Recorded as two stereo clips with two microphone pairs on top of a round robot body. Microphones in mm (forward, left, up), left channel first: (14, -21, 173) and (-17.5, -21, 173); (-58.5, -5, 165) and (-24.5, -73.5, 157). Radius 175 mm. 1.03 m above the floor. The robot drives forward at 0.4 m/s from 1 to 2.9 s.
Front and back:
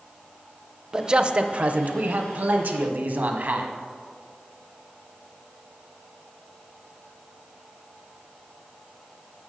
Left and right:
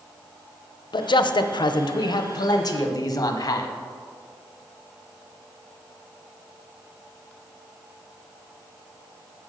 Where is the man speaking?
115° left, 0.5 m; by 3.7 s 155° left, 1.1 m.